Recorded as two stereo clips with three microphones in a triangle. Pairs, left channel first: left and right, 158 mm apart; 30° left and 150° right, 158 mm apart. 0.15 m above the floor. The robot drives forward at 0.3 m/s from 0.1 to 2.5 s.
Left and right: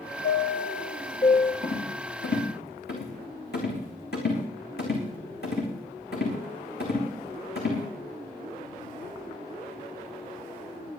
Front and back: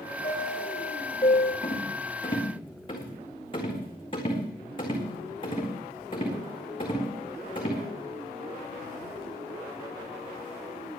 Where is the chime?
65° left, 1.8 m; by 1.5 s 80° left, 1.7 m.